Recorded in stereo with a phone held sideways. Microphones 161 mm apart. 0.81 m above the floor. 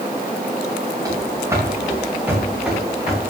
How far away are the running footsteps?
About 4.5 m.